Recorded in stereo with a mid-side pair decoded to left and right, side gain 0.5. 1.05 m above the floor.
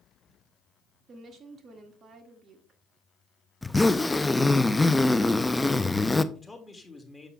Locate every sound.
1.1 s a woman speaking: 45° right, 1.8 m
3.6 s a zipper: 10° left, 0.5 m
6.3 s a man speaking: 15° left, 2.0 m